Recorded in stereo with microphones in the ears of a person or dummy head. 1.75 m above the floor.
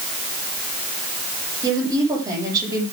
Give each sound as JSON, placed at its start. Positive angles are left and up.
{"t": 1.6, "sound": "a woman speaking", "side_deg": -25, "distance_m": 9.5}